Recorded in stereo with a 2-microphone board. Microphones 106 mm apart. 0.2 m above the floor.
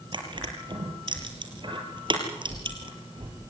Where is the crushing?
45° right (ahead or behind), 5 m.